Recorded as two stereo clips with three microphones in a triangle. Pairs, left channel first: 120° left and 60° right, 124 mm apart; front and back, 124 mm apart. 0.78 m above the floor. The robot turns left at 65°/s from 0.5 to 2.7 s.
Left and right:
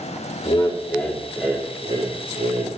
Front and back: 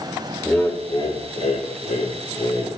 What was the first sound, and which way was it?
Laughter, 80° left.